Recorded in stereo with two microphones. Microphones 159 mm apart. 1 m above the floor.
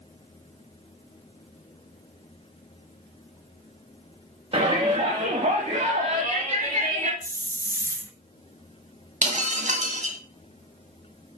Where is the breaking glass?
50° right (ahead or behind), 2 m.